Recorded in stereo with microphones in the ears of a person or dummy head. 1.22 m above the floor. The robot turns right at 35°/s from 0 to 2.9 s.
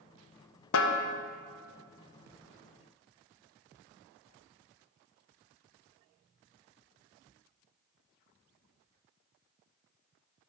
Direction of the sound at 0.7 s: 70° left (ahead or behind).